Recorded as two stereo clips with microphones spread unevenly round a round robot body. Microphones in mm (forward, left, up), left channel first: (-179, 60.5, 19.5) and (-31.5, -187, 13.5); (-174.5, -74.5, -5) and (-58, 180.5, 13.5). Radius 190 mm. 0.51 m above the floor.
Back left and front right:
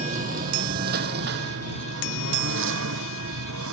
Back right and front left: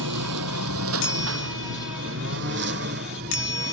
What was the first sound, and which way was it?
A lawn mower, 15° left.